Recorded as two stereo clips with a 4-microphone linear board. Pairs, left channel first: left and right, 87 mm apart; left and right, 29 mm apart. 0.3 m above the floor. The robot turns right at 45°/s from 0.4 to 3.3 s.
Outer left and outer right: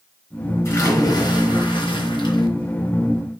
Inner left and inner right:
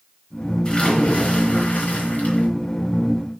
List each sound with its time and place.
0.7 s a splash: 35° left, 3.5 m; by 2.5 s 115° left, 3.5 m